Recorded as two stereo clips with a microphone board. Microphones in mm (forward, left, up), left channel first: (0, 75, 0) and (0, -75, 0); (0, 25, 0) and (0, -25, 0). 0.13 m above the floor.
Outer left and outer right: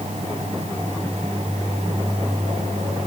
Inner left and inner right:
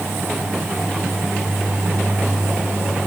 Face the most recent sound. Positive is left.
No sound to turn to.